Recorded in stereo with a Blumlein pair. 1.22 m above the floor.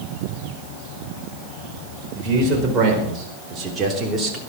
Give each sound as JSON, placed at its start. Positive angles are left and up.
{"t": 2.1, "sound": "a man speaking", "azimuth_deg": -25, "distance_m": 5.0}